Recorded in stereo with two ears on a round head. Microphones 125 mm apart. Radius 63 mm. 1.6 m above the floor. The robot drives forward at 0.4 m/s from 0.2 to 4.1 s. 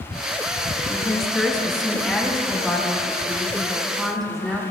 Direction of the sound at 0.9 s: 5° left (ahead or behind).